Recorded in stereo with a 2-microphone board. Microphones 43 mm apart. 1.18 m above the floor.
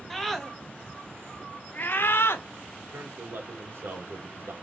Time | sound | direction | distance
0.1 | a scream | 5° left (ahead or behind) | 1.5 m
2.8 | a man speaking | 75° right (ahead or behind) | 1.5 m